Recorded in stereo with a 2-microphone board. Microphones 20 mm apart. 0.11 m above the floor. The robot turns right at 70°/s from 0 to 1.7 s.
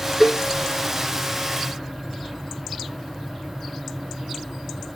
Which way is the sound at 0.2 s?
10° right (ahead or behind).